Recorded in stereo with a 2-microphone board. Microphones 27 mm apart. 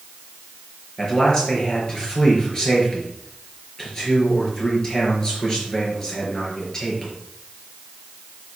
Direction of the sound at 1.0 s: 20° left (ahead or behind).